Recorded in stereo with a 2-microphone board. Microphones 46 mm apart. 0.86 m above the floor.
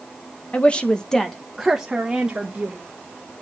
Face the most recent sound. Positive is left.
turn(degrees=-25)  # may be behind; listen again after turning